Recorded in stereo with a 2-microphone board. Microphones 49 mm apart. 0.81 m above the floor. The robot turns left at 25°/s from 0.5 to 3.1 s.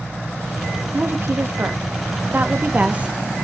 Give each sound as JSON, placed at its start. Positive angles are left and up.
{"t": 0.9, "sound": "a woman speaking", "azimuth_deg": -95, "distance_m": 1.3}